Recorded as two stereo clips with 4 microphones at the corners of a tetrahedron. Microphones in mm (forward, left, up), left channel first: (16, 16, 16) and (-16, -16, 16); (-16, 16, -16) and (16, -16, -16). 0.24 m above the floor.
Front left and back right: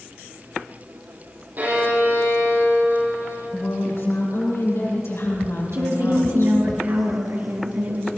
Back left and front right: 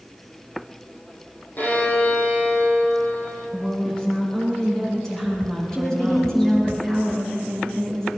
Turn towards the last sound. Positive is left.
turn(degrees=-150)